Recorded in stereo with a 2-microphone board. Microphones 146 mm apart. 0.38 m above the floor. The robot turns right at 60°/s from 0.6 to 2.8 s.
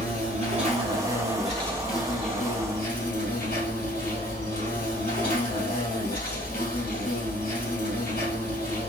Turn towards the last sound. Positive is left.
turn(degrees=75)